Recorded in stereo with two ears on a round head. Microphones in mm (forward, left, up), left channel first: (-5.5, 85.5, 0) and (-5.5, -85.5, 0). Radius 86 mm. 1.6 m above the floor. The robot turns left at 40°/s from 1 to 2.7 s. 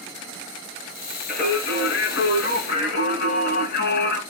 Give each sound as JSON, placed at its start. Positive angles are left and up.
{"t": 1.3, "sound": "singing", "azimuth_deg": 125, "distance_m": 3.0}